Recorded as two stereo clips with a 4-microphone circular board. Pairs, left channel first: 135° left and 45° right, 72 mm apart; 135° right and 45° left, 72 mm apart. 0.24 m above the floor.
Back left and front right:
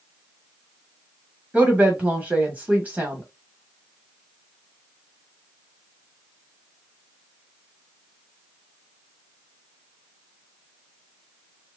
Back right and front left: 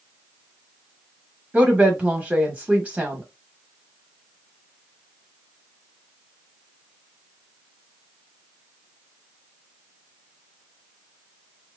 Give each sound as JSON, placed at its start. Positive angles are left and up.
{"t": 1.5, "sound": "a woman speaking", "azimuth_deg": -5, "distance_m": 1.0}